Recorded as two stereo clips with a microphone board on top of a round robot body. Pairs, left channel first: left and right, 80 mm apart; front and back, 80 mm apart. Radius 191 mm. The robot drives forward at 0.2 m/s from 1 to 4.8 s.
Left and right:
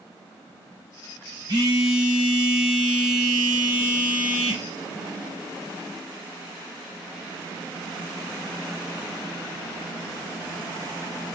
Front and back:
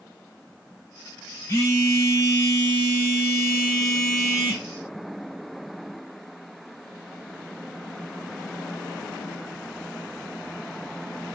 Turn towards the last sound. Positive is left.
turn(degrees=-85)